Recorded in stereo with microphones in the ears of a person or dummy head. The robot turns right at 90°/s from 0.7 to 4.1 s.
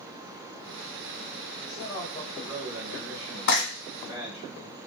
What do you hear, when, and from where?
1.6 s a man speaking: 100° left, 1.2 m; by 4.5 s 35° right, 1.2 m
3.5 s frying: 60° left (ahead or behind), 1.6 m